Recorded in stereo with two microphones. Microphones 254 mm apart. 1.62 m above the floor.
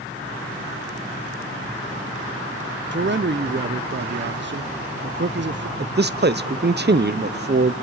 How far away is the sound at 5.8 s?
About 0.6 m.